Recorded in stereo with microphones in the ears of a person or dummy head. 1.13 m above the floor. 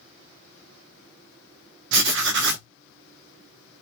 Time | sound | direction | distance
1.9 | writing | 60° right (ahead or behind) | 1.0 m